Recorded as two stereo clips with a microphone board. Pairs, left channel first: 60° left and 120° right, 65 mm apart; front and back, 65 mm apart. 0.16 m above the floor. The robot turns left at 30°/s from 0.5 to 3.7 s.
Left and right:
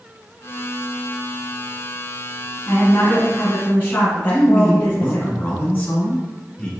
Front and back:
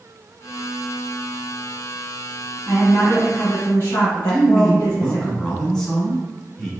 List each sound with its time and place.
2.7 s a woman speaking: 45° left, 2 m; by 5.3 s 10° left, 2 m
4.3 s a man speaking: 70° left, 1.2 m